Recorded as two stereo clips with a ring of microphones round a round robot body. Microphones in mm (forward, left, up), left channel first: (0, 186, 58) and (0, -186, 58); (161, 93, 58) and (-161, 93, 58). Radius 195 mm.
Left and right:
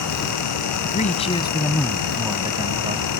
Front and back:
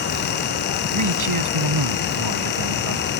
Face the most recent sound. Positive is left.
turn(degrees=-160)